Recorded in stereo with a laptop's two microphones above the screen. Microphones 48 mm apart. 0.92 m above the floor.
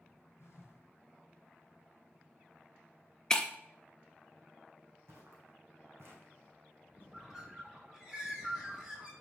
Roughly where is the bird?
Centre.